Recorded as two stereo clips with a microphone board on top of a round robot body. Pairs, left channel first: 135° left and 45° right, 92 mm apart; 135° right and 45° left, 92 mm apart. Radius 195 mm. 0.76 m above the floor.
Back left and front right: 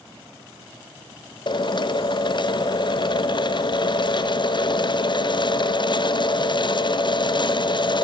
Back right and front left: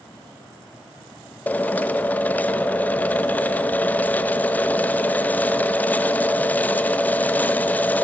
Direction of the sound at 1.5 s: 155° left.